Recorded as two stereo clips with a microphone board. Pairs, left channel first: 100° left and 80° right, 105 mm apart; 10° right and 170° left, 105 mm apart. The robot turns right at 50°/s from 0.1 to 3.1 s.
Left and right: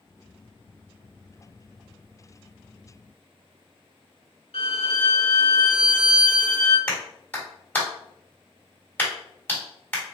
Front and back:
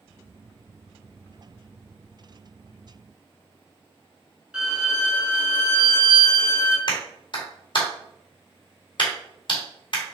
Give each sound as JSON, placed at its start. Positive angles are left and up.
{"t": 4.5, "sound": "a violin", "azimuth_deg": 85, "distance_m": 1.6}
{"t": 6.9, "sound": "a clap", "azimuth_deg": 25, "distance_m": 1.9}